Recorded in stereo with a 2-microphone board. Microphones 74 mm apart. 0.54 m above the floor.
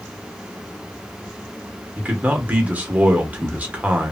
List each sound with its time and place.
2.0 s a man speaking: 20° right (ahead or behind), 0.9 m